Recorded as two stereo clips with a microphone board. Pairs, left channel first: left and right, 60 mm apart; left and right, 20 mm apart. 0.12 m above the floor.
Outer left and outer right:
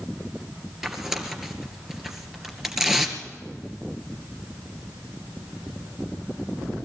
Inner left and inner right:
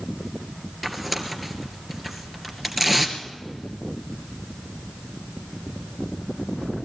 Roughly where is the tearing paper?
Centre.